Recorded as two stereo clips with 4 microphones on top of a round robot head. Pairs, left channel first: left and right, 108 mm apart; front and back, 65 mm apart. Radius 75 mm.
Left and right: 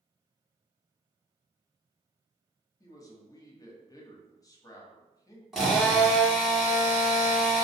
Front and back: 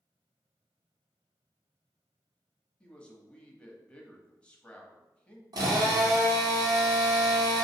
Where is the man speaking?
60° left, 1.1 m.